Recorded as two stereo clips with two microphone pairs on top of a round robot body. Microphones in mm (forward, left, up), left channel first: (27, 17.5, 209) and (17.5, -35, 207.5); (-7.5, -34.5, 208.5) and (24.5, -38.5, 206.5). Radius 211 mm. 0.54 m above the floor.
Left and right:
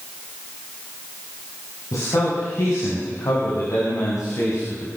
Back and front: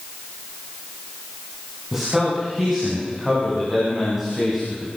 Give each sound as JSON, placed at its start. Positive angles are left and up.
{"t": 1.9, "sound": "a man speaking", "azimuth_deg": 65, "distance_m": 7.5}